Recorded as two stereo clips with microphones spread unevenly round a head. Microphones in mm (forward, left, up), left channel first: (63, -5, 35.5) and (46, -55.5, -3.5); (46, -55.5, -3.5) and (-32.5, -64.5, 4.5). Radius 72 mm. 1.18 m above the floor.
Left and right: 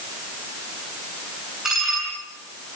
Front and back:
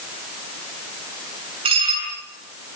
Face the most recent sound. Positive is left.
turn(degrees=160)